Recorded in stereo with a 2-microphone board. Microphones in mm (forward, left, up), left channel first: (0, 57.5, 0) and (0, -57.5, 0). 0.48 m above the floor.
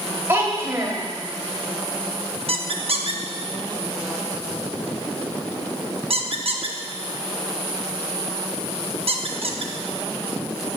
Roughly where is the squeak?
Right.